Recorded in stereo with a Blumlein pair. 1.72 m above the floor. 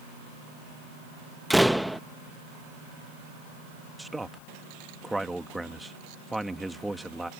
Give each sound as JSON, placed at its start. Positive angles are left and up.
{"t": 1.5, "sound": "a door slam", "azimuth_deg": 0}
{"t": 4.0, "sound": "a man speaking", "azimuth_deg": -5}